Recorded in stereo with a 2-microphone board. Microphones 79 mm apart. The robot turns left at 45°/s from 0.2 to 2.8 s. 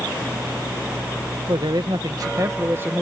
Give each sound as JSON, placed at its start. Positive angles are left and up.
{"t": 1.5, "sound": "a man speaking", "azimuth_deg": -90}